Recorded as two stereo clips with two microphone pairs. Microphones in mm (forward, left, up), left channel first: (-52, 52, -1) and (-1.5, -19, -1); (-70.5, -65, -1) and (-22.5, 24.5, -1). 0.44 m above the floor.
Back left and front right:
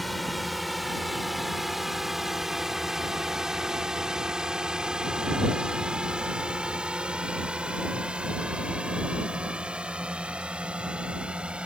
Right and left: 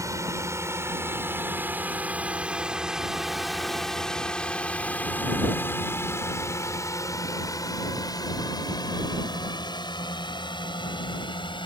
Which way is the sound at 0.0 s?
35° left.